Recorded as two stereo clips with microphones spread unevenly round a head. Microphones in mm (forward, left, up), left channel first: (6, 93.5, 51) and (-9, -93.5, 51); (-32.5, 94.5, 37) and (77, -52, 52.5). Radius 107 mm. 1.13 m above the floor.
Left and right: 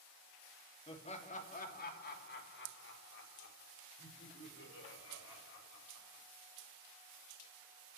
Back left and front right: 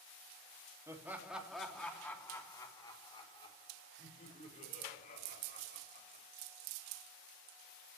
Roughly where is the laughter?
Ahead left.